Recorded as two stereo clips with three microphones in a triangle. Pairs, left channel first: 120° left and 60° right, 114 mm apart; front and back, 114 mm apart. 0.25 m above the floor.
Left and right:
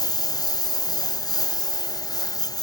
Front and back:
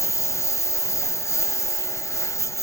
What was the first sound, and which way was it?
A lawn mower, 65° left.